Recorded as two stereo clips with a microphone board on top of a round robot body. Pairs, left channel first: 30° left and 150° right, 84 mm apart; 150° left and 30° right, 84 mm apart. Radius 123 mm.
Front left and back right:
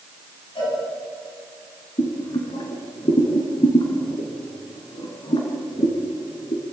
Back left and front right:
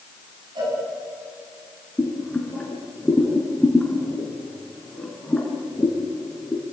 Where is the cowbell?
10° left, 9.5 m.